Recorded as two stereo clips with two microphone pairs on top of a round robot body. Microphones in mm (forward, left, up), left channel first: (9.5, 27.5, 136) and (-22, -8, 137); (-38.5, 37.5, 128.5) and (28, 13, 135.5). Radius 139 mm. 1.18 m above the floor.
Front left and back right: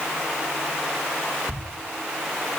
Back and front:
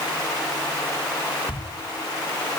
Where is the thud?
150° left, 8 m.